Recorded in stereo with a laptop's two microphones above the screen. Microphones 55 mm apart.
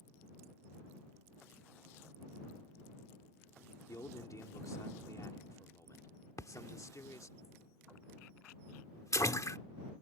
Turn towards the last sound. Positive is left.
turn(degrees=75)  # may be behind; listen again after turning